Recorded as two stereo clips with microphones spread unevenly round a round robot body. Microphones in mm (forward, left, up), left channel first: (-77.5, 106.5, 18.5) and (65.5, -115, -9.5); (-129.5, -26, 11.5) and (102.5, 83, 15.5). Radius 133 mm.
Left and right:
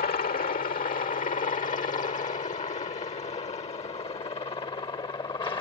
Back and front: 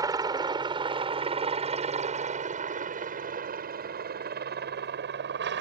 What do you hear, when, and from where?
0.0 s a helicopter: 90° left; by 5.6 s 50° left